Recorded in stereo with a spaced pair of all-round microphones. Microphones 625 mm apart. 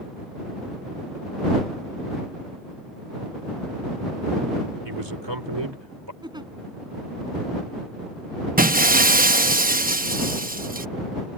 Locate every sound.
4.8 s a man speaking: 40° right (ahead or behind)
6.2 s a giggle: 5° right (ahead or behind)
8.6 s breaking glass: 15° right (ahead or behind)